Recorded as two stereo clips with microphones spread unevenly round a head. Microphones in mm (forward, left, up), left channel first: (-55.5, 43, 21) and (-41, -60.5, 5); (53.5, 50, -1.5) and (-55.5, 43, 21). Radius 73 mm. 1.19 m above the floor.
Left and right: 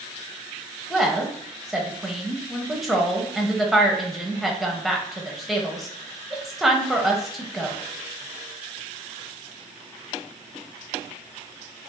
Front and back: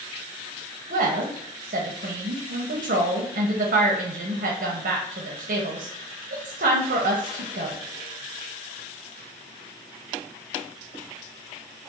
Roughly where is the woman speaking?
Behind.